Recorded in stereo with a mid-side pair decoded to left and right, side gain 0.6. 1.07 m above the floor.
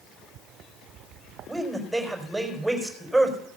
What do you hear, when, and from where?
1.5 s a man speaking: 5° right, 4.5 m